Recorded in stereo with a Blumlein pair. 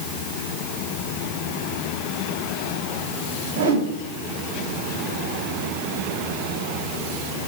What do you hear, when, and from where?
3.5 s a whoosh: 55° right, 7 m